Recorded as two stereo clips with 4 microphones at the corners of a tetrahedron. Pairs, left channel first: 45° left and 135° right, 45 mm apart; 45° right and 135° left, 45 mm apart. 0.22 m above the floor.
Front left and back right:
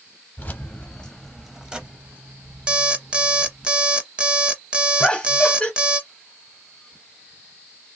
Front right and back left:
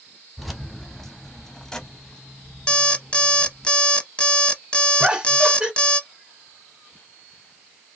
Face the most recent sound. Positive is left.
turn(degrees=90)